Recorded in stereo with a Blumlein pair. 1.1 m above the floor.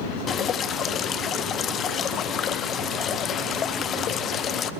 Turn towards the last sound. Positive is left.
turn(degrees=25)